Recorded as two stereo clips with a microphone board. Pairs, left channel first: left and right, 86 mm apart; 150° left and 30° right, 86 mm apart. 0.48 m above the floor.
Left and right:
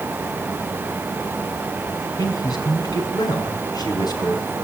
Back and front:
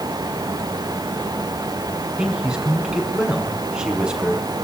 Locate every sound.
2.2 s a man speaking: 50° left, 5.5 m